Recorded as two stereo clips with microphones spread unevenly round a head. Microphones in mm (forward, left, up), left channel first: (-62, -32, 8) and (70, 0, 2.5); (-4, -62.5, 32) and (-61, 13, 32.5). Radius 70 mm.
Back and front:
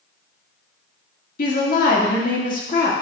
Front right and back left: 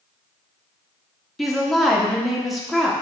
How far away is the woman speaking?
About 2 m.